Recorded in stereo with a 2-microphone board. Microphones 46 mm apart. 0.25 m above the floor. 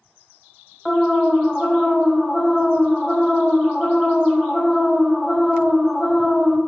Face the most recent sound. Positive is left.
turn(degrees=0)  # may be behind; listen again after turning